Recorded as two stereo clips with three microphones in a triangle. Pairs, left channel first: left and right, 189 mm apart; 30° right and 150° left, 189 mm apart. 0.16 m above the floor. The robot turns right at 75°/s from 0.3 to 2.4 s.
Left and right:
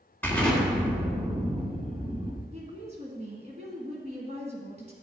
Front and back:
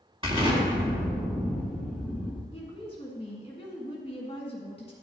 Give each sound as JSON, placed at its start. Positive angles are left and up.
{"t": 0.2, "sound": "an explosion", "azimuth_deg": 155, "distance_m": 1.8}
{"t": 2.5, "sound": "a woman speaking", "azimuth_deg": -70, "distance_m": 1.4}